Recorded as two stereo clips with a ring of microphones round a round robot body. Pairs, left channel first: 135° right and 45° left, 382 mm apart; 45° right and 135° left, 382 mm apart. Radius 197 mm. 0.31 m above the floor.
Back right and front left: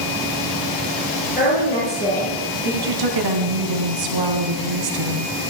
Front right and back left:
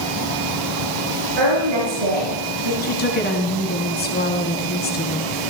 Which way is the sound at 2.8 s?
20° left.